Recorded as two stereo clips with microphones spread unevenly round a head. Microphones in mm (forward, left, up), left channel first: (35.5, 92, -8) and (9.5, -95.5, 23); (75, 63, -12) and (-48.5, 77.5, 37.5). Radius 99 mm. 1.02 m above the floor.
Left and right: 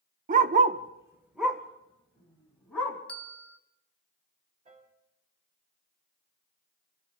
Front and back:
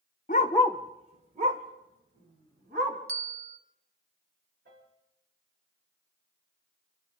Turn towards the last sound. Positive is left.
turn(degrees=-160)